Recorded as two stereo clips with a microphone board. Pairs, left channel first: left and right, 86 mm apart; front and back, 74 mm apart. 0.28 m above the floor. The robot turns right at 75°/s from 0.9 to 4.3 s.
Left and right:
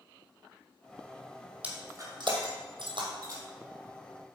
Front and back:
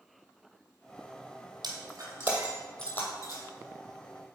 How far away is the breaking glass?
About 2 m.